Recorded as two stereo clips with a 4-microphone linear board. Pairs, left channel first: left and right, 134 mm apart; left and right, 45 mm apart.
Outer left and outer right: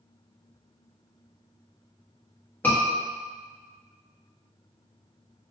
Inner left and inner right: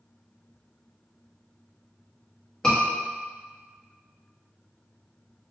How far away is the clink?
I don't hear a clink.